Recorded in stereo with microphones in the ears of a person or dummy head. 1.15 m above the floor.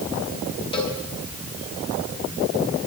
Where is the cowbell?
30° left (ahead or behind), 5 m.